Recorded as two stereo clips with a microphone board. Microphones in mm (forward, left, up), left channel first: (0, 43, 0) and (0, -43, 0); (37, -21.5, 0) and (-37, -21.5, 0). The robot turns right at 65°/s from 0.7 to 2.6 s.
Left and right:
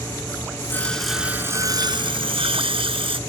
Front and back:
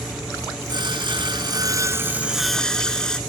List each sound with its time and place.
0.7 s sawing: 155° left; by 3.2 s 80° right